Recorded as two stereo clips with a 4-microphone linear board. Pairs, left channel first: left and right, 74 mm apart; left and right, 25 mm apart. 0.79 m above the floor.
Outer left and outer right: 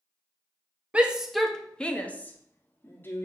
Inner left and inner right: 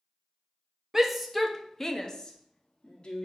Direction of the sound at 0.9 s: 15° right (ahead or behind).